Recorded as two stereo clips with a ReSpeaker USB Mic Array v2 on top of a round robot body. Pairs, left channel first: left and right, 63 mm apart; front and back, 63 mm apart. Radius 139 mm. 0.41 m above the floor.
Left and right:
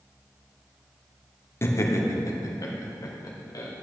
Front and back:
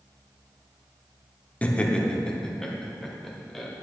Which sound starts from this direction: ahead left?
Laughter, at 1.6 s.